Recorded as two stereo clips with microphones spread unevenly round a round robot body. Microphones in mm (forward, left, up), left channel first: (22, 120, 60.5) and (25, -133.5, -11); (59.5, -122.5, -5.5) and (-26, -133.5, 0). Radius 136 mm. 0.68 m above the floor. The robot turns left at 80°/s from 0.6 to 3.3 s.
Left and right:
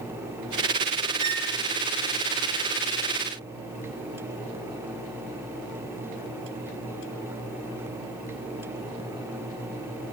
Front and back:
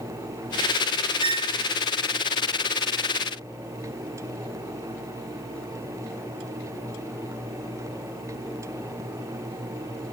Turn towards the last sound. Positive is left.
turn(degrees=40)